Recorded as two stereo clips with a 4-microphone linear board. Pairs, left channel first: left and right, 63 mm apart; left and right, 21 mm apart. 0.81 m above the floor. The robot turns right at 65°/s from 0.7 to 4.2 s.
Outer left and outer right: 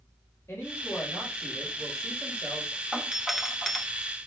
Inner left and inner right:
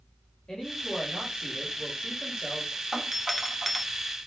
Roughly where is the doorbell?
Centre.